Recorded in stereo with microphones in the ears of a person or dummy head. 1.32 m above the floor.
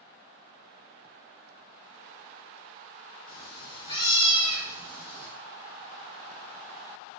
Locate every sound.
3.3 s a cat meowing: 20° left (ahead or behind), 1.5 m